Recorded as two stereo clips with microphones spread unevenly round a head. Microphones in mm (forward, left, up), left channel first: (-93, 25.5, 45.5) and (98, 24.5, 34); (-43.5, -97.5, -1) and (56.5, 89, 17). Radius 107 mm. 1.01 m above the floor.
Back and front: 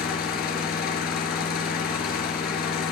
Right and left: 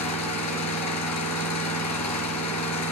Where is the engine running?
130° right, 4.5 m.